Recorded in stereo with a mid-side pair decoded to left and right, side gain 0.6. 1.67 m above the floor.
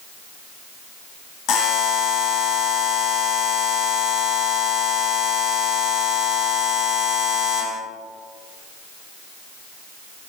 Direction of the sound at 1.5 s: 65° left.